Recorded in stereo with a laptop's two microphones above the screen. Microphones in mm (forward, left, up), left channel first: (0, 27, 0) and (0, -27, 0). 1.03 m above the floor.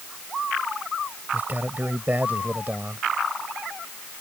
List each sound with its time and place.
1.3 s a man speaking: 35° right (ahead or behind)